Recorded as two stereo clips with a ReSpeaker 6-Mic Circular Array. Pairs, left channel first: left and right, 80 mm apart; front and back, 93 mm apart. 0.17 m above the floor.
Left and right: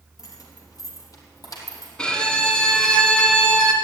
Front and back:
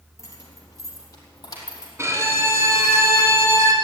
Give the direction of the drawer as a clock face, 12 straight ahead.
No drawer in this recording.